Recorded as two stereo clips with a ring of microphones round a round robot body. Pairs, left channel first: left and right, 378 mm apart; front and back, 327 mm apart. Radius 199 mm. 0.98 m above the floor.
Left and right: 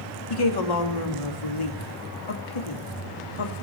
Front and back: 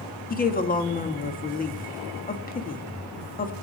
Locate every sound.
0.3 s a woman speaking: 65° left, 1.9 m